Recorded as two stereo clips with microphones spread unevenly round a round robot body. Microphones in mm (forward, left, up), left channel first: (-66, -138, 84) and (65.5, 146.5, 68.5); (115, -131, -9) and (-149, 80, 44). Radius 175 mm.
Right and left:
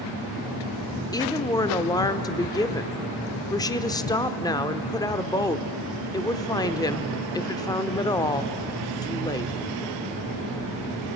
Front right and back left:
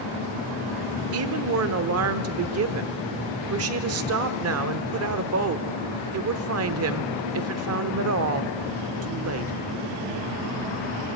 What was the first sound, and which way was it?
A woman speaking, 170° left.